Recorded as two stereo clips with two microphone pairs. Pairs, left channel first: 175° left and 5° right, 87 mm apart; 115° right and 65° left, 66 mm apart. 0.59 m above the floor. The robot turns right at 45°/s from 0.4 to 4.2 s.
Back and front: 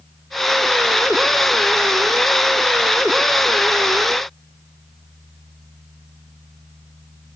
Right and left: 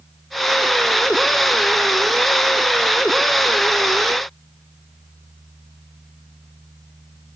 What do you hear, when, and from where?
Only background noise.